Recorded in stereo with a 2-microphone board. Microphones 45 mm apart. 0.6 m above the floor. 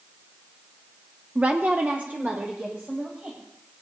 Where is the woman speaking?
25° right (ahead or behind), 0.6 m; by 3.4 s 40° right (ahead or behind), 3 m.